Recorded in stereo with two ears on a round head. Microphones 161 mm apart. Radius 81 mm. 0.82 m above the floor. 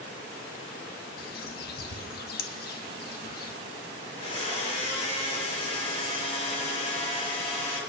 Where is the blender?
40° left (ahead or behind), 7 m.